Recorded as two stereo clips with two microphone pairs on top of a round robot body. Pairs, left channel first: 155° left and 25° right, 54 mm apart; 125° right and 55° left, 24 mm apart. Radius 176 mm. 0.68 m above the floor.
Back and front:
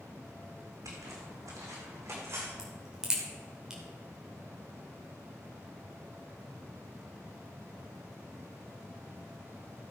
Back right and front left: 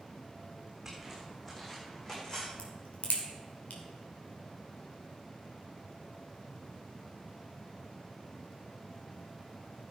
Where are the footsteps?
25° right, 3 m; by 2.5 s 65° right, 2.5 m.